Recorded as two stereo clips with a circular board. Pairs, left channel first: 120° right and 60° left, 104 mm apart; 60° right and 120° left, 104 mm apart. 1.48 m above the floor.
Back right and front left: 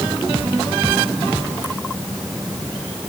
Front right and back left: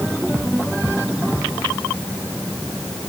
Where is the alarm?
I don't hear an alarm.